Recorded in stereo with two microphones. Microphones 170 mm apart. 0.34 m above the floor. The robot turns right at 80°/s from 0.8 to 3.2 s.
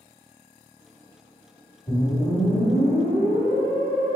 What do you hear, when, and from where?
1.9 s a whoosh: 55° left, 1.3 m; by 4.2 s 160° left, 1.3 m